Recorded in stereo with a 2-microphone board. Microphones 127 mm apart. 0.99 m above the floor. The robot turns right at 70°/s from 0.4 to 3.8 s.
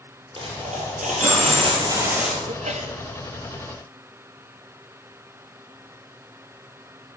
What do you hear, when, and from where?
0.4 s a dropped coin: 135° right, 5 m; by 2.4 s 5° left, 5 m
2.5 s a sneeze: 105° right, 1.7 m; by 3.0 s 75° right, 1.7 m